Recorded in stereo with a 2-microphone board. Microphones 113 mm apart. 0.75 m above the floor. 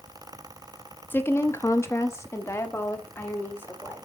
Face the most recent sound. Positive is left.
turn(degrees=20)  # may be behind; listen again after turning